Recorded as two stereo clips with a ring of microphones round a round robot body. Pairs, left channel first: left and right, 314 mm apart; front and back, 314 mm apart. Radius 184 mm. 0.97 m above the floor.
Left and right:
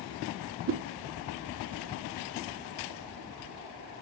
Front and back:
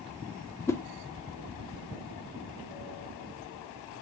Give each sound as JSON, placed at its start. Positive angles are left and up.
{"t": 0.7, "sound": "a whoosh", "azimuth_deg": -80, "distance_m": 0.5}